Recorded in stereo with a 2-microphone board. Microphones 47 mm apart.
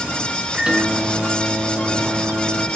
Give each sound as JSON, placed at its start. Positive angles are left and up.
{"t": 0.5, "sound": "a microwave", "side_deg": -15, "distance_m": 1.1}